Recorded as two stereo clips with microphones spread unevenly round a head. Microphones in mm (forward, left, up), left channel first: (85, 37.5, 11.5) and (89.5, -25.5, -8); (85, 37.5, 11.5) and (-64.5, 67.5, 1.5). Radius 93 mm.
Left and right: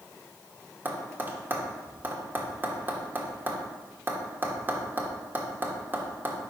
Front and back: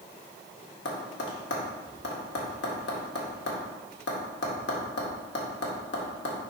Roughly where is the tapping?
Ahead right.